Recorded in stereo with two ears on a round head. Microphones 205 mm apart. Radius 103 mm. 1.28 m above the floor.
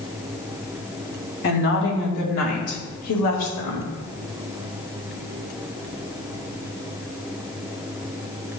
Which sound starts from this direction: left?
A woman speaking, at 1.4 s.